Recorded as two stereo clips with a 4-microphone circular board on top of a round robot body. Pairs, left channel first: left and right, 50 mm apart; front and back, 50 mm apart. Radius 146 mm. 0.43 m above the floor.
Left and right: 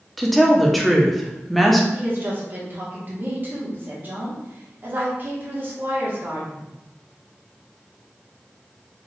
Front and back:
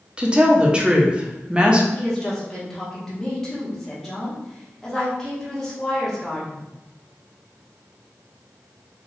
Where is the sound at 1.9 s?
75° right, 1.4 m.